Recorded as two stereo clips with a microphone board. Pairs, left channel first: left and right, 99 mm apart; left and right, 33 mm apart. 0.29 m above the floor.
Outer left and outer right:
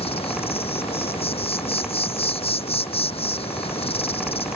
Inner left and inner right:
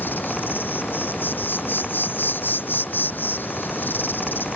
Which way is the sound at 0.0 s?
85° left.